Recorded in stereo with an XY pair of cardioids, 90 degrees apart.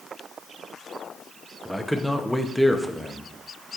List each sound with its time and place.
1.6 s a man speaking: straight ahead, 0.8 m